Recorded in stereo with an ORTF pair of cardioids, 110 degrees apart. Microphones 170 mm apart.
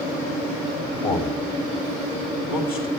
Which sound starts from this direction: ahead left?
A man speaking, at 1.0 s.